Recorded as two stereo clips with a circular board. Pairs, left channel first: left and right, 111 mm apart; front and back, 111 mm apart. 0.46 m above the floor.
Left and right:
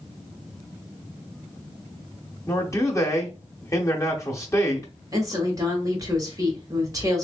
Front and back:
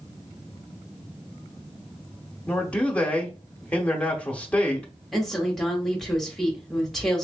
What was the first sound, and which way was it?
A man speaking, 70° left.